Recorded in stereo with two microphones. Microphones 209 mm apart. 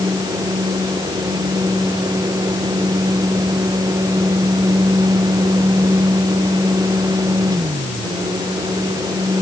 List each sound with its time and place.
Only background noise.